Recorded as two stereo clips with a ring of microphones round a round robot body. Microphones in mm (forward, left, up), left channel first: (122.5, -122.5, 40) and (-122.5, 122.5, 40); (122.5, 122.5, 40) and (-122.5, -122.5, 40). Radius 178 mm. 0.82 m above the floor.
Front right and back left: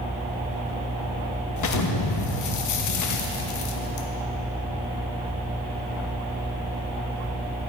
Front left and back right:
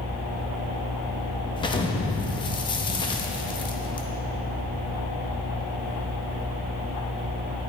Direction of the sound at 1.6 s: 30° right.